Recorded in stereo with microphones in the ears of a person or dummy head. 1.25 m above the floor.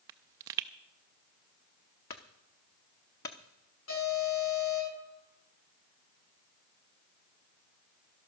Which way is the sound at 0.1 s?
15° right (ahead or behind).